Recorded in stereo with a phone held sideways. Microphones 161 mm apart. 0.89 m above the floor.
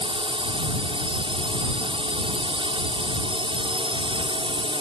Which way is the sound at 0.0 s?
30° right (ahead or behind).